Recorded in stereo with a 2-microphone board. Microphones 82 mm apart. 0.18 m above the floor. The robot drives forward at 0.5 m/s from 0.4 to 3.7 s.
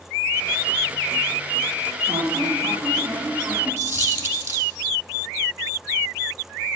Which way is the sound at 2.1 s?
35° right (ahead or behind).